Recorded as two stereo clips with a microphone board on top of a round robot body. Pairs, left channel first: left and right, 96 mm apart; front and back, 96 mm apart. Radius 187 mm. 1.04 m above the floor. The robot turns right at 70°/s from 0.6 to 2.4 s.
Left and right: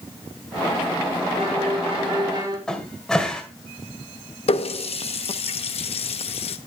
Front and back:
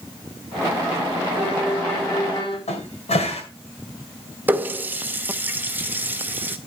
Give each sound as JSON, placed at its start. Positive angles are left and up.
{"t": 1.4, "sound": "a violin", "azimuth_deg": -115, "distance_m": 5.5}
{"t": 2.7, "sound": "a cupboard door", "azimuth_deg": 5, "distance_m": 2.0}
{"t": 4.5, "sound": "a running tap", "azimuth_deg": 110, "distance_m": 0.5}